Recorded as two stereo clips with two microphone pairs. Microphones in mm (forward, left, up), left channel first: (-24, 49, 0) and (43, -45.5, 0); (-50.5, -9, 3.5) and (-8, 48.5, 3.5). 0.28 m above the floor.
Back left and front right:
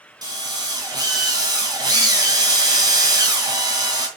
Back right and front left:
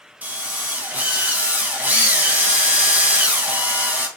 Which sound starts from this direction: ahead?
A drill, at 0.2 s.